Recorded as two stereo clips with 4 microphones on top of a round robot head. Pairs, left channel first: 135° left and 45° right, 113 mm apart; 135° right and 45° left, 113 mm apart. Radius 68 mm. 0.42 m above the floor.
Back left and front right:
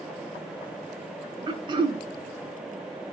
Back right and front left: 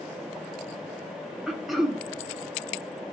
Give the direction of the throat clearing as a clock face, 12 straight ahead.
1 o'clock.